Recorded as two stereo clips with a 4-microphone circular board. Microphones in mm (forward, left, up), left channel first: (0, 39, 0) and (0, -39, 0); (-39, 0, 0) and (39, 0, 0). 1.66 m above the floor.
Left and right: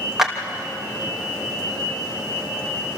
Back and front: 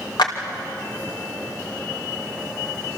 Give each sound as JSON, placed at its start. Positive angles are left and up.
{"t": 0.2, "sound": "a clap", "azimuth_deg": -175, "distance_m": 2.5}